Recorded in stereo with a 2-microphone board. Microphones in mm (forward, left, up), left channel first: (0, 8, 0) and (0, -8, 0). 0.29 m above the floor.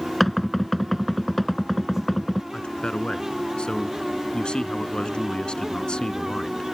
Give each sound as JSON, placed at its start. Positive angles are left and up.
{"t": 0.2, "sound": "knocking", "side_deg": 20}
{"t": 2.5, "sound": "a man speaking", "side_deg": 70}